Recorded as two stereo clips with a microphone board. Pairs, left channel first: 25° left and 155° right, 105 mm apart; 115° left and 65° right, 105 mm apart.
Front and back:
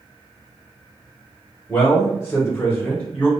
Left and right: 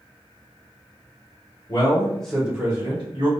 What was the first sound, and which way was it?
A man speaking, 85° left.